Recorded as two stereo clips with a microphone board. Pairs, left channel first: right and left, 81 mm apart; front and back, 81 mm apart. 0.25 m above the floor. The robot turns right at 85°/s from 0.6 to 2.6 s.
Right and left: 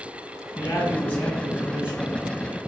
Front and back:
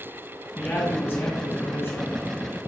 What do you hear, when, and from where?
0.6 s a man speaking: 75° right, 1.5 m; by 2.2 s 55° left, 1.5 m